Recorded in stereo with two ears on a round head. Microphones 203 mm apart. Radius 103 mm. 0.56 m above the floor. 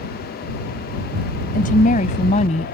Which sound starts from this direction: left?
A woman speaking, at 1.5 s.